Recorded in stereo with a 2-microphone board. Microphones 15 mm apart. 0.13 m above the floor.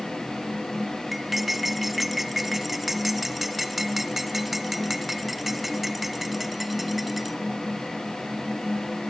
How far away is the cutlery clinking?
About 0.9 m.